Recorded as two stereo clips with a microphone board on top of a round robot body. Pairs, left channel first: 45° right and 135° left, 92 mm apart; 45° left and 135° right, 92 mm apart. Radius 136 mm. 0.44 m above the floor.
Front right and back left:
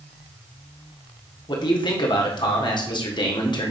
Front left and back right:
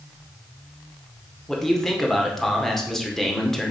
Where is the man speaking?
40° right, 2 m.